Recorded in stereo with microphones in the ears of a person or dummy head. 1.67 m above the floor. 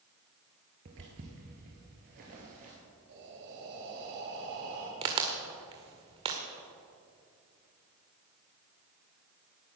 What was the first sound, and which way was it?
Footsteps, 35° right (ahead or behind).